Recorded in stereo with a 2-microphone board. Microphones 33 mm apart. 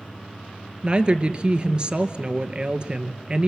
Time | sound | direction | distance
0.8 | a woman speaking | 30° right (ahead or behind) | 1.6 m